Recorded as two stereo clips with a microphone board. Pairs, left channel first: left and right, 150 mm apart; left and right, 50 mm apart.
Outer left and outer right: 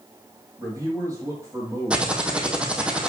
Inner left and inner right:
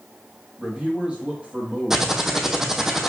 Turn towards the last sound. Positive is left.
turn(degrees=-5)  # may be behind; listen again after turning